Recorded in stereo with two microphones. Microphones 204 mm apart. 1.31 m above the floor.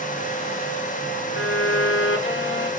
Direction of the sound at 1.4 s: 75° left (ahead or behind).